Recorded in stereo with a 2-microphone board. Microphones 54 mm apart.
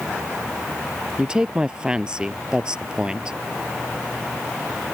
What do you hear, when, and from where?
1.2 s a woman speaking: 15° right (ahead or behind)